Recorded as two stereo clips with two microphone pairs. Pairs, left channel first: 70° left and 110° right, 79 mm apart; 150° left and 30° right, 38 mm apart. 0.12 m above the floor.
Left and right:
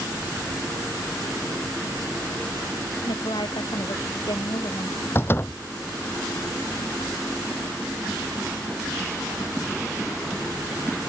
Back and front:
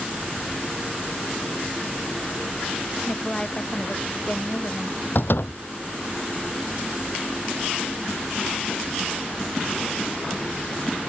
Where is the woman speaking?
80° left; by 5.0 s 90° left.